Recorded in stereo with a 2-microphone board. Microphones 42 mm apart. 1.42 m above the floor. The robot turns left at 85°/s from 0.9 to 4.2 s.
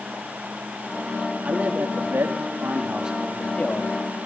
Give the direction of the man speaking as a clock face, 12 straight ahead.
1 o'clock.